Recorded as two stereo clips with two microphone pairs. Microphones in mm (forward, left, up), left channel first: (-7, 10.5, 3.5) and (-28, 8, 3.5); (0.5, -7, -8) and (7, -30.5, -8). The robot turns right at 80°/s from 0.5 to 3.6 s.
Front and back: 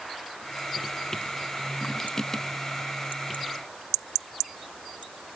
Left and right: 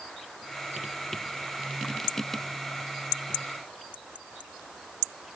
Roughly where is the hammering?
I don't hear hammering.